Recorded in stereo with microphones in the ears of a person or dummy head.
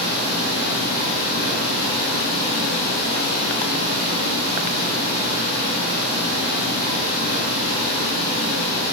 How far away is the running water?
About 0.8 m.